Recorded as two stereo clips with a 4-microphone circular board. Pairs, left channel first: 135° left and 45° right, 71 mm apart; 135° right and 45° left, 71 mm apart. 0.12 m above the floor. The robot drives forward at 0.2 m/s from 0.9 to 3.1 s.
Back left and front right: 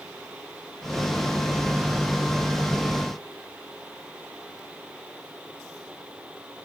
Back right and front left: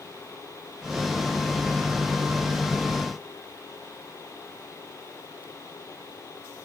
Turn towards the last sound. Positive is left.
No sound to turn to.